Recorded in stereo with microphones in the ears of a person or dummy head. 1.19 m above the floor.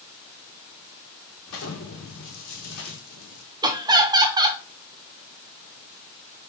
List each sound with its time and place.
1.5 s an explosion: 65° left (ahead or behind), 1.3 m
3.6 s laughter: 20° right (ahead or behind), 0.5 m